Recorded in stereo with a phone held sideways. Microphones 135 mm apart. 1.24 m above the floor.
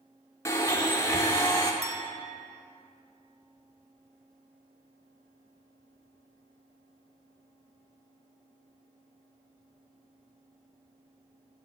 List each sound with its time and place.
0.5 s a blender: 20° left (ahead or behind), 0.8 m
1.8 s a clink: 30° left (ahead or behind), 0.7 m